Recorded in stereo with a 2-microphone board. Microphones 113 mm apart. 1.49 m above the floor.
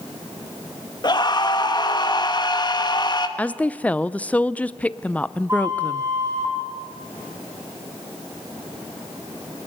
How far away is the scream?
About 1.9 m.